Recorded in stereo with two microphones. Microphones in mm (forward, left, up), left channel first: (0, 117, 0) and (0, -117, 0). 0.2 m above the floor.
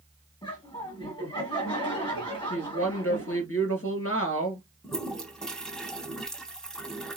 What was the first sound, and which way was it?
Laughter, 20° left (ahead or behind).